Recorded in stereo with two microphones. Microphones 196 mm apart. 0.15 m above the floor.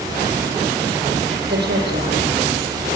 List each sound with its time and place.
1.5 s a woman speaking: 60° right (ahead or behind), 6.5 m